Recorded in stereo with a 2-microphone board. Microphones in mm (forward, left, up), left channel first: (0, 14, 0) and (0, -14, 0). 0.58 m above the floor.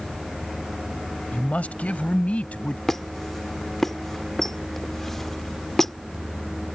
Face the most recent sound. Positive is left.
turn(degrees=15)  # may be behind; listen again after turning